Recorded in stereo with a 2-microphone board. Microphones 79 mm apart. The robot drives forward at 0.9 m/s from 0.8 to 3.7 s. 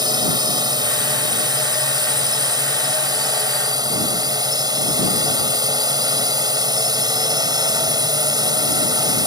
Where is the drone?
60° right (ahead or behind); by 9.3 s 55° right (ahead or behind).